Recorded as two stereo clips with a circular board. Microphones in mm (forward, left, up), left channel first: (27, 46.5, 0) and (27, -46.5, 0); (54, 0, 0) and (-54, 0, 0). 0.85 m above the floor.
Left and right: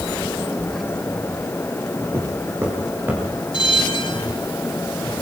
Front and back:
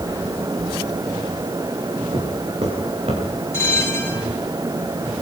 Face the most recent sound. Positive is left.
turn(degrees=65)